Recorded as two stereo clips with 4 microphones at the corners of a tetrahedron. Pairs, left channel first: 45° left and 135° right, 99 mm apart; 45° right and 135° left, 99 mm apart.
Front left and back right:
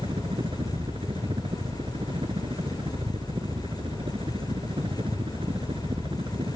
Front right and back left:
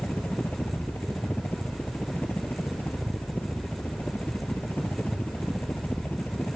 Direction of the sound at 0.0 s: 115° right.